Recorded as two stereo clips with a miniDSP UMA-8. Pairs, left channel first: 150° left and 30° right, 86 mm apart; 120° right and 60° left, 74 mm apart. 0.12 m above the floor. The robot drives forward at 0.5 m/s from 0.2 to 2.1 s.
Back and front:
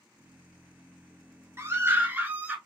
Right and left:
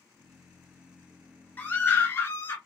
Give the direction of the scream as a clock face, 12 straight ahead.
2 o'clock.